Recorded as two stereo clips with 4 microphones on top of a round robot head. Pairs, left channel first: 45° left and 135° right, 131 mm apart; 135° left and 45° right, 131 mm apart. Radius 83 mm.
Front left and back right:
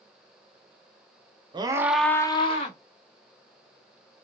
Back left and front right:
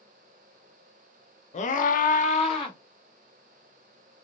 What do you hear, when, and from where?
1.5 s a scream: 170° left, 0.9 m; by 2.8 s 80° left, 1.2 m